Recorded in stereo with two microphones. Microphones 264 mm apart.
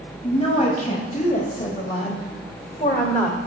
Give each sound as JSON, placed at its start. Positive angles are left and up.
{"t": 0.2, "sound": "a woman speaking", "side_deg": 25, "distance_m": 1.8}